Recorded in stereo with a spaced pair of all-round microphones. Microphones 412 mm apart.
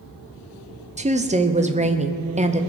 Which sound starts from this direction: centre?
A woman speaking, at 1.0 s.